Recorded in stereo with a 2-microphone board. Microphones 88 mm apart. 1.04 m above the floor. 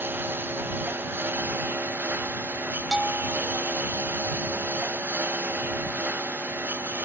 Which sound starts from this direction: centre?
A bell, at 2.9 s.